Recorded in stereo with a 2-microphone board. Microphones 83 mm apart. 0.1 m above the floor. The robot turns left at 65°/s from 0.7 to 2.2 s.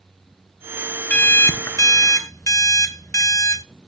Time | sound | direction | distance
1.1 | an alarm clock | 155° left | 0.6 m